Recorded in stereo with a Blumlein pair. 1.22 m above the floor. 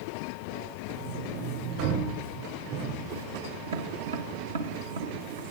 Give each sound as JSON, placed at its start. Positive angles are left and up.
{"t": 0.9, "sound": "a sliding door", "azimuth_deg": -50, "distance_m": 6.5}
{"t": 3.7, "sound": "tapping", "azimuth_deg": -65, "distance_m": 1.2}